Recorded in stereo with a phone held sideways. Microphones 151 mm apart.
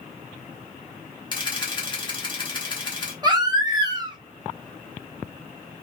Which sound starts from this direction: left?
A camera shutter, at 1.3 s.